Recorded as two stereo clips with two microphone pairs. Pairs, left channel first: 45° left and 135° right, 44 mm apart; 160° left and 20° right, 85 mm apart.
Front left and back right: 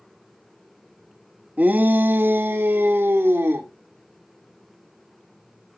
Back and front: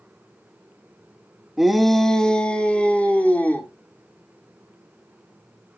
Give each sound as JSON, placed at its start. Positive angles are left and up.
{"t": 1.6, "sound": "a shout", "azimuth_deg": -105, "distance_m": 0.8}